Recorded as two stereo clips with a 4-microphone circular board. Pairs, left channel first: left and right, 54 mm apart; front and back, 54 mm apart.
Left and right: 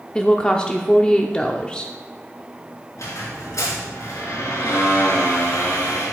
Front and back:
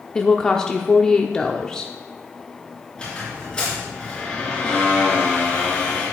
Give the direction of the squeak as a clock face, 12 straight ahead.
10 o'clock.